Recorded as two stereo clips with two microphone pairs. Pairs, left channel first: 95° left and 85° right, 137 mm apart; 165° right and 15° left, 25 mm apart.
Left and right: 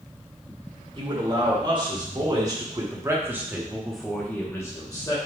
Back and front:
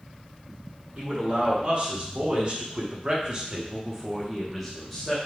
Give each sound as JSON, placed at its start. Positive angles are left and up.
{"t": 0.9, "sound": "a man speaking", "azimuth_deg": -35, "distance_m": 1.8}